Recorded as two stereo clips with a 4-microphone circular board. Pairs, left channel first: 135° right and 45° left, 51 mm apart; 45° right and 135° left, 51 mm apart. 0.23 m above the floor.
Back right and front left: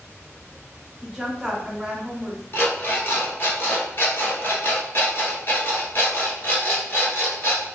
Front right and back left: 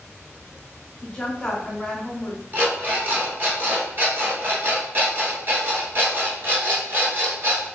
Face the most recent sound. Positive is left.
turn(degrees=180)